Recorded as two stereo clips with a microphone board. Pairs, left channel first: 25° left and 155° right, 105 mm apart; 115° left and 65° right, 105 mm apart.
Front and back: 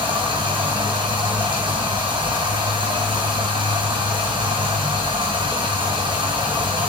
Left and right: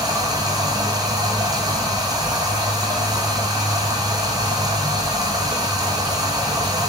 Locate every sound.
0.0 s running water: 120° right, 0.8 m